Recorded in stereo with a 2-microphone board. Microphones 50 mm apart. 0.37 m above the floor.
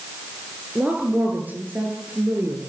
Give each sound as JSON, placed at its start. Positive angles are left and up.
{"t": 0.8, "sound": "a woman speaking", "side_deg": -30, "distance_m": 8.0}